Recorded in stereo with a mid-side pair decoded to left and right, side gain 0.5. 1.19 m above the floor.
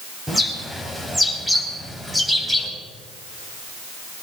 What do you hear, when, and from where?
0.3 s a bird: 10° right, 5.5 m